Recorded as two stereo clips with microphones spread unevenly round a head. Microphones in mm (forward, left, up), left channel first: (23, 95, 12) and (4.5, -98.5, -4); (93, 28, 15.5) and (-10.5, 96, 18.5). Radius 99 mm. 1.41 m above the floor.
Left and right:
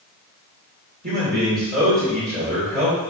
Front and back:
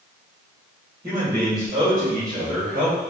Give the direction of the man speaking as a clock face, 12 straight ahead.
5 o'clock.